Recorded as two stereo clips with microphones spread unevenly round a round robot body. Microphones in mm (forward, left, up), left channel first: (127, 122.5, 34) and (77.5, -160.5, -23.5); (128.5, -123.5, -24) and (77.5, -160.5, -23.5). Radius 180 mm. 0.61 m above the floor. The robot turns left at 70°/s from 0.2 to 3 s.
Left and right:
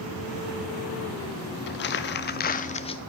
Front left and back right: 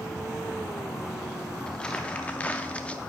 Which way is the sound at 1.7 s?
95° left.